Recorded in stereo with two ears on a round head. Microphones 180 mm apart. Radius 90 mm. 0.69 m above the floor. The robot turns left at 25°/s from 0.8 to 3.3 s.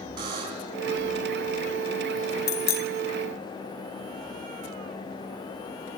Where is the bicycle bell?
70° left (ahead or behind), 3.5 m; by 2.9 s 75° left (ahead or behind), 3.5 m.